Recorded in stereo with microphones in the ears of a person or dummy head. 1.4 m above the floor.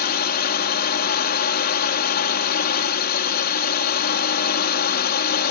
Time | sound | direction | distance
0.0 | a drone | 55° left (ahead or behind) | ?